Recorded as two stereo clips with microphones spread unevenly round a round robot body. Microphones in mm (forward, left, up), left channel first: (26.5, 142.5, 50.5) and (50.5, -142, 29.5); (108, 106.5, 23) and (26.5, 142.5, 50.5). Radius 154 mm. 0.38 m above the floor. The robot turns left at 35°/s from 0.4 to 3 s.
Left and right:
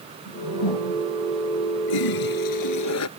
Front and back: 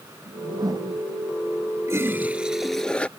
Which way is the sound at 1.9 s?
95° left.